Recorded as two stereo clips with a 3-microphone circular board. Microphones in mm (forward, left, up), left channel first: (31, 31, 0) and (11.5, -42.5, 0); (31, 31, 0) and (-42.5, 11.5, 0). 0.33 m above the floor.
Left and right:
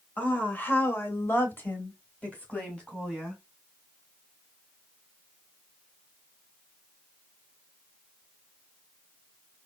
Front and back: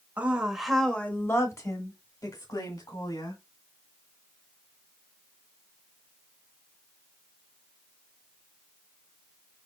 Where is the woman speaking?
135° left, 1.2 m; by 3.4 s straight ahead, 2.5 m.